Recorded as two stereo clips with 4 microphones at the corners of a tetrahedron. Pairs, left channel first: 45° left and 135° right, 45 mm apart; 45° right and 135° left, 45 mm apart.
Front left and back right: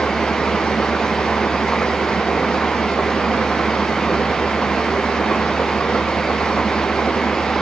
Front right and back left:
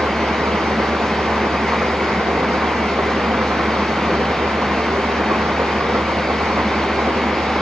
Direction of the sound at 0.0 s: 110° left.